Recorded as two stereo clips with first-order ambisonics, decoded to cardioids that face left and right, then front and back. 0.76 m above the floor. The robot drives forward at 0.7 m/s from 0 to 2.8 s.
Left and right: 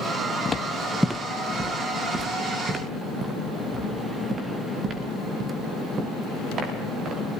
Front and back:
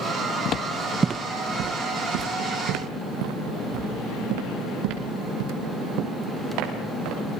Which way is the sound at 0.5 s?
25° left.